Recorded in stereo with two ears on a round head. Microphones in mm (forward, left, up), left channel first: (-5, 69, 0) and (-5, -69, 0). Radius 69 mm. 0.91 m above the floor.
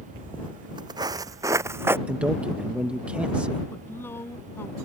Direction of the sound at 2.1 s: 10° right (ahead or behind).